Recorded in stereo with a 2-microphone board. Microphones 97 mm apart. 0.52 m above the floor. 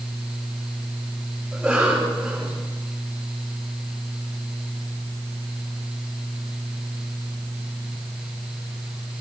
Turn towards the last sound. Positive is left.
turn(degrees=-10)  # may be behind; listen again after turning